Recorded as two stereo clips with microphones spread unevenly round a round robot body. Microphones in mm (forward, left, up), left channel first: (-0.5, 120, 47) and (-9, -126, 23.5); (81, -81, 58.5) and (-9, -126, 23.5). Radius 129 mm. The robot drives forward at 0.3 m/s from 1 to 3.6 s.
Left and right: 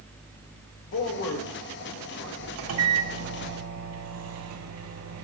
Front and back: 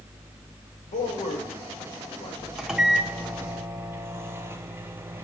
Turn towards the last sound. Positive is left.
turn(degrees=-95)